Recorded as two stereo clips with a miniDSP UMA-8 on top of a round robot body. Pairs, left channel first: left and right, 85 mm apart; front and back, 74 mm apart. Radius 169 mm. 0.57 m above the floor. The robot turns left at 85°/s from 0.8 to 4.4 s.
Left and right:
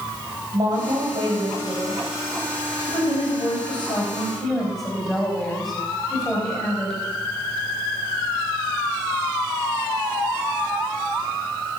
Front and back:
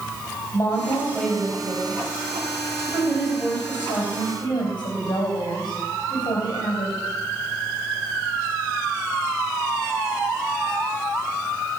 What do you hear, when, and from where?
0.5 s a woman speaking: 50° right, 4 m; by 7.0 s 5° left, 4 m